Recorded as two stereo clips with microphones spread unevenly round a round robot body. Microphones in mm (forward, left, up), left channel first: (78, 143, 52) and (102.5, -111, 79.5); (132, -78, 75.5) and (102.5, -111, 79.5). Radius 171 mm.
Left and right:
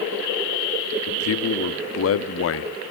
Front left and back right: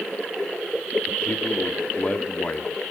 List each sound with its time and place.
1.1 s a man speaking: 105° left, 1.0 m